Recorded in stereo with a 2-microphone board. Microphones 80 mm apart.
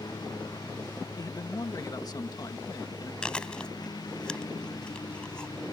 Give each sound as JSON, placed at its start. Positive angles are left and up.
{"t": 0.0, "sound": "a lawn mower", "side_deg": 55}
{"t": 1.2, "sound": "a man speaking", "side_deg": 55}
{"t": 3.2, "sound": "chewing", "side_deg": 10}